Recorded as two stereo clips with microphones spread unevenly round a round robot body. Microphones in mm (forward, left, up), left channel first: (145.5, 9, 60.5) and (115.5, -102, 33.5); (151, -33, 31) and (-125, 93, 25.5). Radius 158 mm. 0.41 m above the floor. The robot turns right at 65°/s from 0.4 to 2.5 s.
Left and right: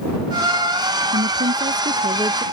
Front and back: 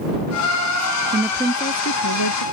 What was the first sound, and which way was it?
A woman speaking, 130° right.